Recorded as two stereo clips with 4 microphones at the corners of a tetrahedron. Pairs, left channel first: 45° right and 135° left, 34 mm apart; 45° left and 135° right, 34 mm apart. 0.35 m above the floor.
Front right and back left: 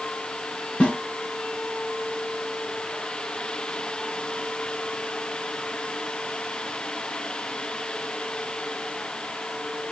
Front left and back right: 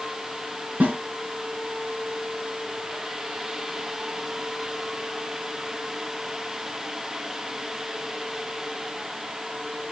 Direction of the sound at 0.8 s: 110° right.